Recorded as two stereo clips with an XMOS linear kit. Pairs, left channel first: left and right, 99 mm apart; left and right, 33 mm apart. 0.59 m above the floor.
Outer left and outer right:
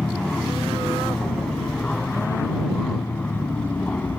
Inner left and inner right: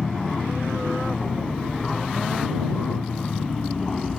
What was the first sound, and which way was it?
An aircraft, 5° left (ahead or behind).